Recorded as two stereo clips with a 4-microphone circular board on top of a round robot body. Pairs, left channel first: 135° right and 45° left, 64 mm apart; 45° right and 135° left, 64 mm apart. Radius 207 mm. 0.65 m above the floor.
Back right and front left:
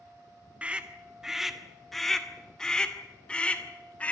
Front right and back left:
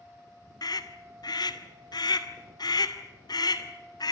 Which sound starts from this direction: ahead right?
A scream, at 0.6 s.